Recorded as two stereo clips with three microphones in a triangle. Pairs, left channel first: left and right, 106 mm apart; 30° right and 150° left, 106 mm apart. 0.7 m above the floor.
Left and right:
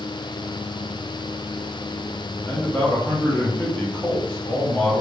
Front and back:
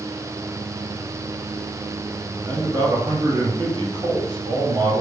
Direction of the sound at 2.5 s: 150° left.